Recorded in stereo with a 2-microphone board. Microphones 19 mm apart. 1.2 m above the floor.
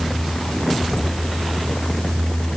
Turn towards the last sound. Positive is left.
No sound to turn to.